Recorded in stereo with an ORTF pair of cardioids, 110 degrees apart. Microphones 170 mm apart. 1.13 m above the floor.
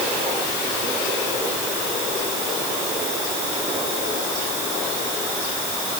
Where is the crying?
No crying in this recording.